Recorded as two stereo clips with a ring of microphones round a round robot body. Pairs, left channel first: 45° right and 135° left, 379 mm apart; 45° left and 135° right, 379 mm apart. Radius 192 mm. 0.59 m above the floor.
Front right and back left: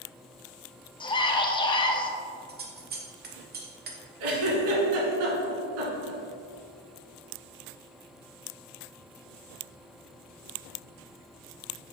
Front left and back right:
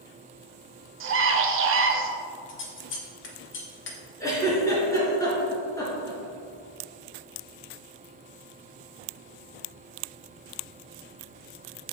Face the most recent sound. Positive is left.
turn(degrees=125)